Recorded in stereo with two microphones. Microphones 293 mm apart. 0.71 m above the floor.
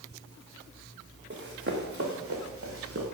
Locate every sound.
1.3 s running footsteps: 40° right (ahead or behind), 3 m; by 3.0 s 50° right (ahead or behind), 5 m